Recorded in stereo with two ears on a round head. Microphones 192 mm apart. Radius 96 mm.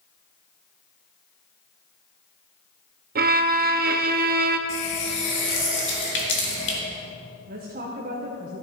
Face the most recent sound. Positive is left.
turn(degrees=-40)  # may be behind; listen again after turning